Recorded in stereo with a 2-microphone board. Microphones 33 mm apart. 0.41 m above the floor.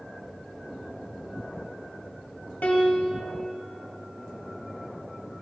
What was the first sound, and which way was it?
A piano, 60° left (ahead or behind).